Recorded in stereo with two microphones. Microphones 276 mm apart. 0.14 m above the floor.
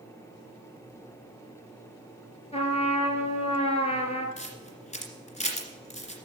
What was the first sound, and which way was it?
A trumpet, 20° left (ahead or behind).